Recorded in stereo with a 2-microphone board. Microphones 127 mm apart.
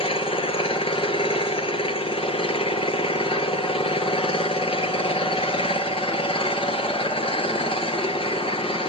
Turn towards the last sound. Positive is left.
turn(degrees=50)  # may be behind; listen again after turning